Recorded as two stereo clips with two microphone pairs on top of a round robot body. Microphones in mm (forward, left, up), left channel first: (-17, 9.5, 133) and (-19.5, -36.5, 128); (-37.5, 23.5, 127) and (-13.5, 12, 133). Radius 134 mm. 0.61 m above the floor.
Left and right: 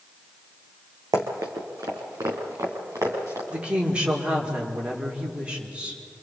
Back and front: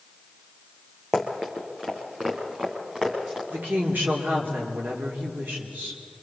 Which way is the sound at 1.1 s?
95° right.